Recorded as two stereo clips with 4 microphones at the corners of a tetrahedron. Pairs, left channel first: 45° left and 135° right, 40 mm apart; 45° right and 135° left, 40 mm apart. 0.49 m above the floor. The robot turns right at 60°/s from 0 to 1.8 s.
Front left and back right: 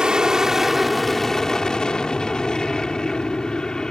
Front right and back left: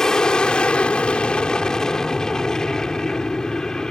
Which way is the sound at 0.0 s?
105° right.